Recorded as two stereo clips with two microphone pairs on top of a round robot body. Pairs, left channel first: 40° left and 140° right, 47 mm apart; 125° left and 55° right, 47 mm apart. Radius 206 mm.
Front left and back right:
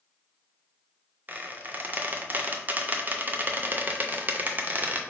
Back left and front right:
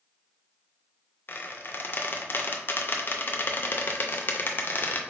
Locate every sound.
1.3 s a squeak: 170° left, 0.6 m